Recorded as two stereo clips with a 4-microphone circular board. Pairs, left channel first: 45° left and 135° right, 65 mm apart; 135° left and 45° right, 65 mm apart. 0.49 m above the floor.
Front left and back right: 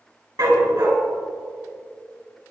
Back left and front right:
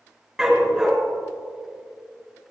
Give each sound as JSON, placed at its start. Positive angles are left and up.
{"t": 0.4, "sound": "a dog barking", "azimuth_deg": -125, "distance_m": 2.5}